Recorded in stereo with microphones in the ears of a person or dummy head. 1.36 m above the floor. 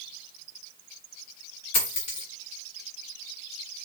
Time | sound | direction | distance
1.7 | a dropped coin | 40° left (ahead or behind) | 2.5 m